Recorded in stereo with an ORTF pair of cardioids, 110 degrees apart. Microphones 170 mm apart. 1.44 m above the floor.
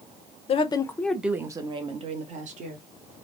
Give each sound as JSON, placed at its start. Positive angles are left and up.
{"t": 0.5, "sound": "a woman speaking", "azimuth_deg": 40, "distance_m": 0.6}